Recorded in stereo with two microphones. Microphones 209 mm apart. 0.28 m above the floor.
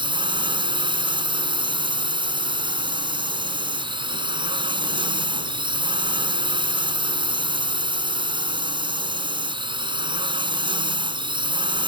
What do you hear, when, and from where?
0.0 s a drone: 25° right (ahead or behind)